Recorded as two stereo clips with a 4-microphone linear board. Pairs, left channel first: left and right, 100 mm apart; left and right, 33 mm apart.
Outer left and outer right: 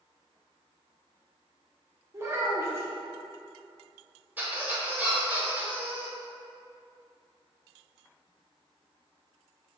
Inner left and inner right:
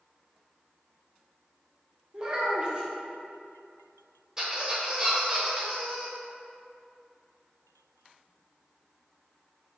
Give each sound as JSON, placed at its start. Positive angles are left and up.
{"t": 2.1, "sound": "a child speaking", "side_deg": -25, "distance_m": 0.7}
{"t": 4.4, "sound": "a squeak", "side_deg": -15, "distance_m": 0.8}